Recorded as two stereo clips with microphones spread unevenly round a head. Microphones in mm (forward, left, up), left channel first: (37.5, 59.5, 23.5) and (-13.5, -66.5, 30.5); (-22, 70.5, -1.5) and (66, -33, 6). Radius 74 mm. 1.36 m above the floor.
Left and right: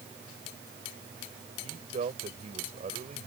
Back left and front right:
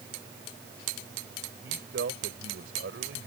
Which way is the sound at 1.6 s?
65° right.